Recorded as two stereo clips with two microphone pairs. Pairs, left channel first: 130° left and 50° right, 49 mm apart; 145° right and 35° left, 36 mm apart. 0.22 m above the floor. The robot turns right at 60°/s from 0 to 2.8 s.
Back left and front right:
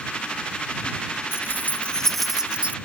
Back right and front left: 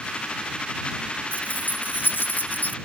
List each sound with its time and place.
1.3 s keys jangling: 165° left; by 2.8 s 110° right